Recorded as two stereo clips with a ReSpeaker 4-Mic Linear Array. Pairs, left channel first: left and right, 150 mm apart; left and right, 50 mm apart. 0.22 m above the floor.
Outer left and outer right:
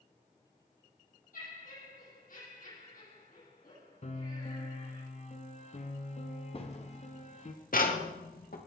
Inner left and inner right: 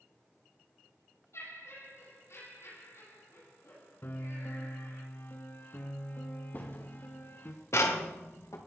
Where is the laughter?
75° left (ahead or behind), 9 m.